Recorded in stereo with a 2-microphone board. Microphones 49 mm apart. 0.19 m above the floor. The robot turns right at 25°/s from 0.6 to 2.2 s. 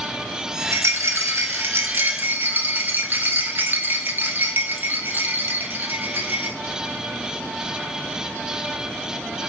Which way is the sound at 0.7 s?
85° right.